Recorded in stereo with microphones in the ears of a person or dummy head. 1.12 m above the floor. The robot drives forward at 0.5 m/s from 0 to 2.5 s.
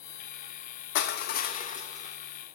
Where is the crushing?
65° left (ahead or behind), 0.6 m; by 2.2 s 35° left (ahead or behind), 1.0 m.